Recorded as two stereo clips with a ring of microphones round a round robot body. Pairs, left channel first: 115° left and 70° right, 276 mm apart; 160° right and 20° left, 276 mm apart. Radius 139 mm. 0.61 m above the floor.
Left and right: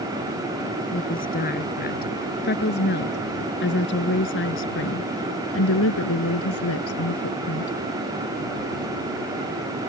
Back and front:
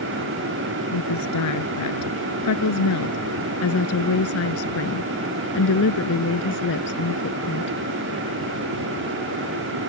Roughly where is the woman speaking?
Behind.